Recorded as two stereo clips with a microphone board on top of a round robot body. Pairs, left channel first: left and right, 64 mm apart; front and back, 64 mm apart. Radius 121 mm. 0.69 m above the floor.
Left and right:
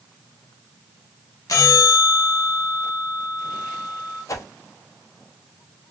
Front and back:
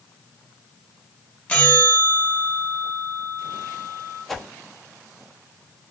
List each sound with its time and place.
1.5 s a bell: 70° left, 1.4 m
4.3 s a whoosh: 85° left, 1.0 m